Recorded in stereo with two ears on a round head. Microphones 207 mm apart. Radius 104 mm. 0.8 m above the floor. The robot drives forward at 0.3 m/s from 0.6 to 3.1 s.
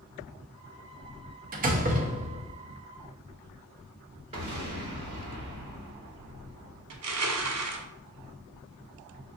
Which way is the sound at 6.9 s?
75° right (ahead or behind).